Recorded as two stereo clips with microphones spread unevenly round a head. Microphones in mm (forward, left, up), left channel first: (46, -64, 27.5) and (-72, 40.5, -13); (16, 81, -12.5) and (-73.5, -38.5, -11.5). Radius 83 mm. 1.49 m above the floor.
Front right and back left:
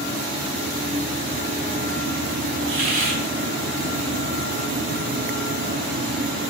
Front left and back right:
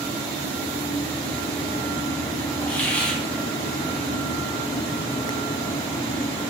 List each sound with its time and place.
2.7 s a hiss: 135° left, 2 m